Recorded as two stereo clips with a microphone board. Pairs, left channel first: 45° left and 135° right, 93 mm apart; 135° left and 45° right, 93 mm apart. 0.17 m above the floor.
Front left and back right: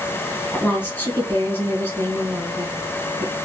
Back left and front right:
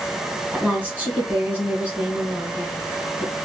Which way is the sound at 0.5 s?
5° left.